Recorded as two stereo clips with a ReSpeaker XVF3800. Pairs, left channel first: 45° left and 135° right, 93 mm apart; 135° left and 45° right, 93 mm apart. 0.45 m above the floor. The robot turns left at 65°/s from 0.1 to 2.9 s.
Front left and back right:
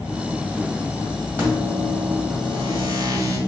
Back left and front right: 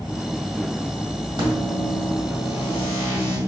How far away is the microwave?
About 1.5 m.